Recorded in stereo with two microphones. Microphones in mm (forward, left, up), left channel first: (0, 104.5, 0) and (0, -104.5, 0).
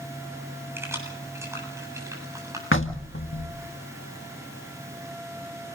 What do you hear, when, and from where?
0.8 s keys jangling: 10° right (ahead or behind), 7.5 m; by 2.6 s 15° right (ahead or behind), 8 m
2.7 s knocking: 75° left (ahead or behind), 1.6 m